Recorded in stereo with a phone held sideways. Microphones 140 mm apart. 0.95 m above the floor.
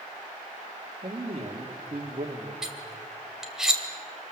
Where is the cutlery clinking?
5° right (ahead or behind), 2.5 m.